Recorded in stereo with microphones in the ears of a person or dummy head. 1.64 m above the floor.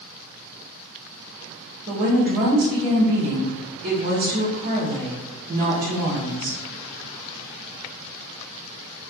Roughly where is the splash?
No splash in this recording.